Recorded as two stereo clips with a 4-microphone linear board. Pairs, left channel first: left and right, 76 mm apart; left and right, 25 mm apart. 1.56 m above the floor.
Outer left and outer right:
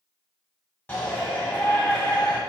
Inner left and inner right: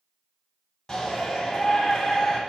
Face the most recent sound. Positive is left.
turn(degrees=25)  # may be behind; listen again after turning